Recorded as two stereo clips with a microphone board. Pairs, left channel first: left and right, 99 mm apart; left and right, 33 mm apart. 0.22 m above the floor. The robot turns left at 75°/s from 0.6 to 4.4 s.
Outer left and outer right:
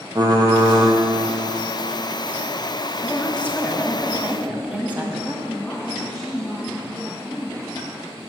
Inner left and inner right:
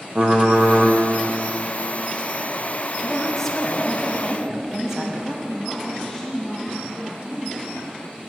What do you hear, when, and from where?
0.1 s typing on a keyboard: 40° right (ahead or behind), 1.2 m; by 0.9 s 15° right (ahead or behind), 1.2 m
3.0 s a woman speaking: 20° left (ahead or behind), 1.0 m; by 5.3 s 15° right (ahead or behind), 1.0 m
5.5 s a woman speaking: 5° left (ahead or behind), 2.0 m